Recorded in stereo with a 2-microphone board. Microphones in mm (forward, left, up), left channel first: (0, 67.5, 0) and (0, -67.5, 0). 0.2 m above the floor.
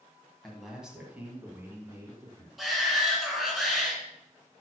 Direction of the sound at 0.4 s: Centre (ahead or behind).